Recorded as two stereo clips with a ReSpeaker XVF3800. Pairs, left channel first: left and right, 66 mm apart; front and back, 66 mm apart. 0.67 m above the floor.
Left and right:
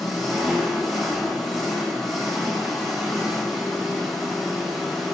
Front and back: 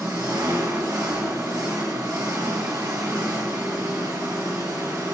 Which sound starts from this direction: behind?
An engine running, at 0.0 s.